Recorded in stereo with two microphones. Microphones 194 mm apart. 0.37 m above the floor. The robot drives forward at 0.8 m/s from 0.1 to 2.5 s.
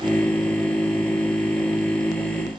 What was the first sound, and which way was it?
Only background noise.